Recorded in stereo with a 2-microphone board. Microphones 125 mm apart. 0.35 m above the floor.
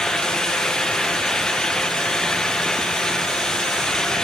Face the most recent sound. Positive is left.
No sound to turn to.